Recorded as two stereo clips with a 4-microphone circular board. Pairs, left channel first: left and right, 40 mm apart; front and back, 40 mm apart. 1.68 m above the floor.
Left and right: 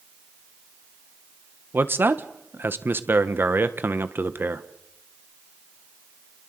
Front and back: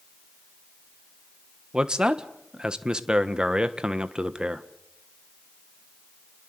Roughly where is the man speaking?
Right.